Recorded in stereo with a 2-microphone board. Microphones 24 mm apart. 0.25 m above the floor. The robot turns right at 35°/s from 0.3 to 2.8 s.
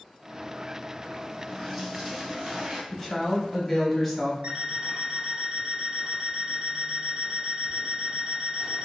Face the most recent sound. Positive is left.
turn(degrees=-45)  # may be behind; listen again after turning